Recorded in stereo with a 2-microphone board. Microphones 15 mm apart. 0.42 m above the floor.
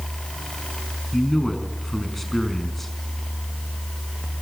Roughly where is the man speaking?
Centre.